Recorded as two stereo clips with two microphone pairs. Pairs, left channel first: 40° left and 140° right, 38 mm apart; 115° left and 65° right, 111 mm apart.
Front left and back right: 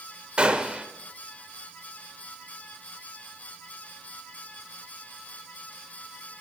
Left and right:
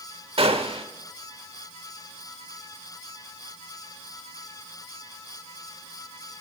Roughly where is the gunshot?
Right.